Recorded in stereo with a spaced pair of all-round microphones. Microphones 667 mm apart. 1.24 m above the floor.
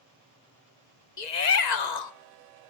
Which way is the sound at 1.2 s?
85° left.